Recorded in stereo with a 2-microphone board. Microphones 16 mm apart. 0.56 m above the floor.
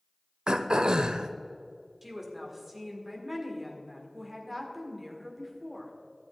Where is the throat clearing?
65° right (ahead or behind), 0.5 m.